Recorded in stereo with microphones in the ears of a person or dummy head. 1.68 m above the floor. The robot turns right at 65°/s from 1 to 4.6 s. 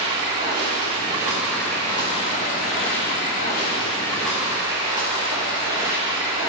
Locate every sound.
0.0 s running water: 35° right, 1.3 m; by 6.5 s 160° right, 1.3 m